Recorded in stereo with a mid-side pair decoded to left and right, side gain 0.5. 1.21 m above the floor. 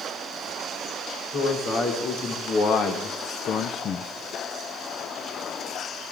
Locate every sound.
1.3 s a man speaking: 65° left, 2.5 m; by 4.1 s 50° left, 0.5 m